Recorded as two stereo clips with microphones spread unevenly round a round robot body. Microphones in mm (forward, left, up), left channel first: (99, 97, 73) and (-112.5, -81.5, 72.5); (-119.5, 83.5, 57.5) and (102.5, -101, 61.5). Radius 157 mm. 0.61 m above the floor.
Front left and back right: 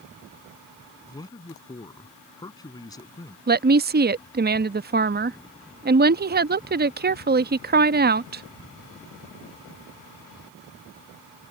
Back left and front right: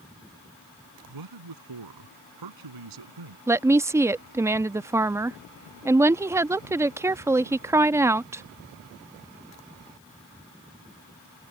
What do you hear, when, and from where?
1.1 s a man speaking: 35° right
3.5 s a woman speaking: 115° right